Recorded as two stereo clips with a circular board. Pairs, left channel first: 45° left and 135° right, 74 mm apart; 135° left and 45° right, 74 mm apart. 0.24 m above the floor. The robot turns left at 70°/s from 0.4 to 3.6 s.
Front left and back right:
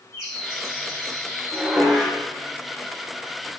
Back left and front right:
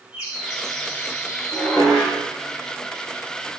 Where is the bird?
120° right, 4 m; by 1.9 s 140° left, 4 m.